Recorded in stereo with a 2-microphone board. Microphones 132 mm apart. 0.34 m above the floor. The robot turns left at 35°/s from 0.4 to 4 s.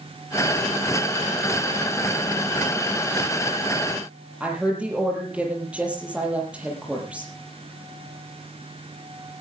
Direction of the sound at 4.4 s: 10° right (ahead or behind).